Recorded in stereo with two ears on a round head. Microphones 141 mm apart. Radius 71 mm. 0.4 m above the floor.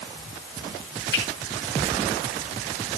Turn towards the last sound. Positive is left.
turn(degrees=70)  # may be behind; listen again after turning